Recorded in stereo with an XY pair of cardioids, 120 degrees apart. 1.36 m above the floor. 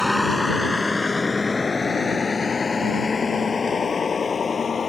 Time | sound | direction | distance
0.0 | a vehicle | 5° left | ?